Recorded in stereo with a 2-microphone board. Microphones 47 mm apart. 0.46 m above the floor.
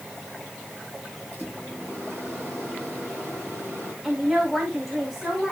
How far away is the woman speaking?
About 4.5 m.